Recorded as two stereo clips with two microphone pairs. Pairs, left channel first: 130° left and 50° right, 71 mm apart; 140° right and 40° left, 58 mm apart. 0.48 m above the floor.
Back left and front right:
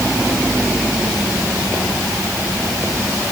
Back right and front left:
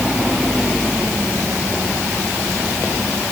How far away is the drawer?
I don't hear a drawer.